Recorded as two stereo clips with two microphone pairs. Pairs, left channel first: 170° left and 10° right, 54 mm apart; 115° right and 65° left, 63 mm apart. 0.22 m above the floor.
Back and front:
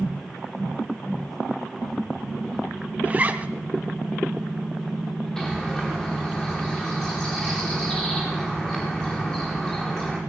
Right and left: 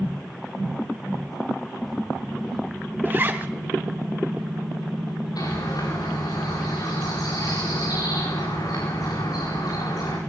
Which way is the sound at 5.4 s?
115° right.